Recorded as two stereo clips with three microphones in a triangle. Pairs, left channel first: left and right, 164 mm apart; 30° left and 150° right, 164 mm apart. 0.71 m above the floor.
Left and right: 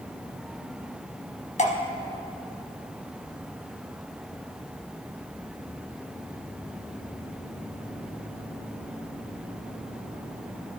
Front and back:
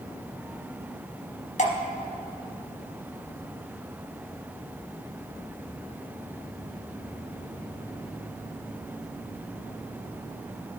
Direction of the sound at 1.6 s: 60° left.